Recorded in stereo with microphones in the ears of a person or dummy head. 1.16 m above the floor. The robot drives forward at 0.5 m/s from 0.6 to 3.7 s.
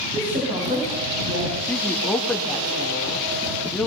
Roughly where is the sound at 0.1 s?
Right.